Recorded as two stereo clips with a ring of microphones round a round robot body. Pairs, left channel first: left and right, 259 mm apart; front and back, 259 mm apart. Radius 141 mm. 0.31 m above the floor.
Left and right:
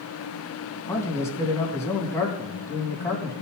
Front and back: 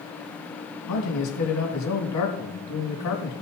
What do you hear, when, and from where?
0.9 s a man speaking: 10° left, 3 m